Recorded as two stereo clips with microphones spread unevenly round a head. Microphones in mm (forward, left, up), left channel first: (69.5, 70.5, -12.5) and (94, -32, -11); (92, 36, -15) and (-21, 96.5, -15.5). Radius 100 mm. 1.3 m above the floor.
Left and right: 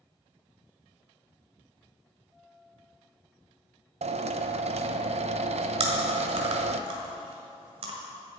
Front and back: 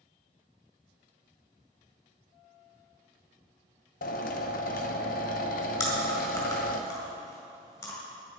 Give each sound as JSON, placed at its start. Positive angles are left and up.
{"t": 4.0, "sound": "a drill", "azimuth_deg": -55, "distance_m": 0.7}
{"t": 5.8, "sound": "chewing", "azimuth_deg": -95, "distance_m": 1.8}